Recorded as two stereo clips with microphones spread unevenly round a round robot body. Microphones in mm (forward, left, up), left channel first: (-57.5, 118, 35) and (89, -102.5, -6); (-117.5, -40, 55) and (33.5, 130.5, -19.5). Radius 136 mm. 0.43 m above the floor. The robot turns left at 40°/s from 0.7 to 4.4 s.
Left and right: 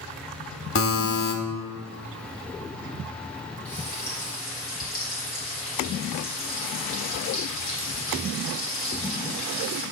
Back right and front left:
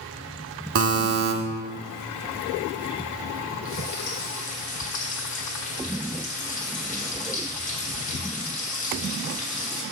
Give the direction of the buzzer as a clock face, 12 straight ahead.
9 o'clock.